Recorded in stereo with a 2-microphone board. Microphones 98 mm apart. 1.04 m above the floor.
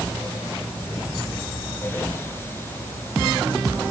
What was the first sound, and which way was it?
Only background noise.